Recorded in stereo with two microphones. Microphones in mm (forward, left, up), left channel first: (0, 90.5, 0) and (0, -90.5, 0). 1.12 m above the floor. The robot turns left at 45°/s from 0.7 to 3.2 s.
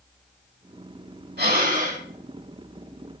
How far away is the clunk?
No clunk in this recording.